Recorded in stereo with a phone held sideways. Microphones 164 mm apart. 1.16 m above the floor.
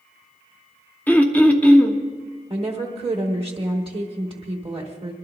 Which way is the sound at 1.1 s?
10° left (ahead or behind).